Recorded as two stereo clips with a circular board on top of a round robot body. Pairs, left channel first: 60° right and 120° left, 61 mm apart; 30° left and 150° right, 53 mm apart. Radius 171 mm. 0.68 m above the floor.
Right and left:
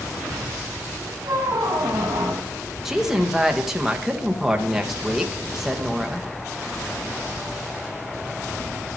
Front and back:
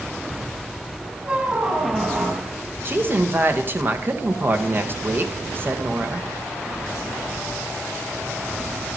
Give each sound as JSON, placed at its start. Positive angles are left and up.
{"t": 1.2, "sound": "a squeak", "azimuth_deg": 145, "distance_m": 2.0}
{"t": 2.9, "sound": "a woman speaking", "azimuth_deg": -160, "distance_m": 1.3}